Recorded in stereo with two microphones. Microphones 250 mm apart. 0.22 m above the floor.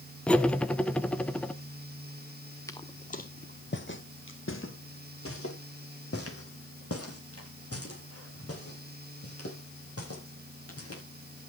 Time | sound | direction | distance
0.3 | cutlery clinking | 5° left (ahead or behind) | 1.1 m
2.7 | footsteps | 10° left (ahead or behind) | 1.0 m